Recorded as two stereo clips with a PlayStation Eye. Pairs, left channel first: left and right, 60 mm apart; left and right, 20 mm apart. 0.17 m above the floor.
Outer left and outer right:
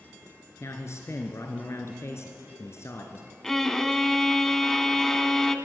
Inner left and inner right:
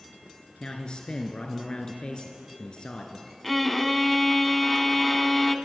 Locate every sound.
0.6 s a man speaking: 50° left (ahead or behind), 2.5 m
3.4 s a violin: 10° left (ahead or behind), 1.2 m